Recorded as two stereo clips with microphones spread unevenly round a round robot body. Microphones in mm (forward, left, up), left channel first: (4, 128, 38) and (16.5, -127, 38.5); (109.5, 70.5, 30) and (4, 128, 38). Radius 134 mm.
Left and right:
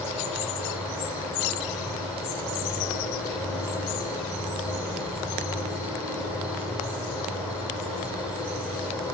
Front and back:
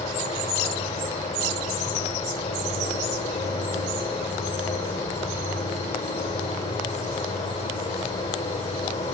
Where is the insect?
Straight ahead, 6 m.